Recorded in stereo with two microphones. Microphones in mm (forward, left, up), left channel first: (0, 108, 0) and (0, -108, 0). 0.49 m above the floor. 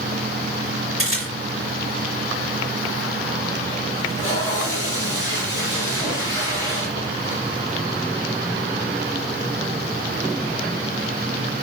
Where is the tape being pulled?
85° right, 5.5 m.